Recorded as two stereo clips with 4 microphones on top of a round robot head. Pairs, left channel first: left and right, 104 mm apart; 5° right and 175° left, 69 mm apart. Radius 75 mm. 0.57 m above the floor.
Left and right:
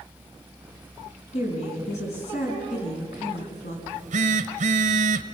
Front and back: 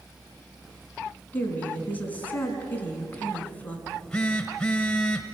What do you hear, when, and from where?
1.3 s a woman speaking: 60° left, 5.5 m
3.9 s a phone buzzing: 90° right, 0.9 m